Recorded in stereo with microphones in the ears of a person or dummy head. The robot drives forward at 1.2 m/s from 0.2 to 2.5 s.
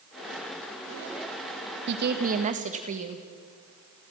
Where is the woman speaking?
60° right (ahead or behind), 1.2 m; by 3.2 s 40° right (ahead or behind), 1.7 m.